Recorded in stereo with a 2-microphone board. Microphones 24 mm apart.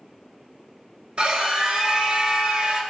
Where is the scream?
55° right (ahead or behind), 1.8 m.